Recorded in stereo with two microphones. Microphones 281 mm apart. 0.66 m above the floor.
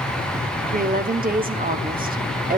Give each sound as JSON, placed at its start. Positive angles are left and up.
{"t": 0.7, "sound": "a woman speaking", "side_deg": -30, "distance_m": 1.2}